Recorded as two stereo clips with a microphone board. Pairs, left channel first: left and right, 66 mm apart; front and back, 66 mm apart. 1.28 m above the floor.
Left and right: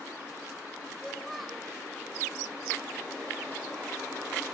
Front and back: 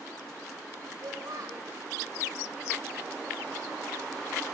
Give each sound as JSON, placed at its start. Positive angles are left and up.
{"t": 1.0, "sound": "a child speaking", "azimuth_deg": 180, "distance_m": 4.0}